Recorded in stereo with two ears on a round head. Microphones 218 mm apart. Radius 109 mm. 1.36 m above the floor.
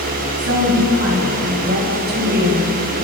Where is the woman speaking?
55° right (ahead or behind), 7.5 m; by 2.7 s 40° right (ahead or behind), 5 m.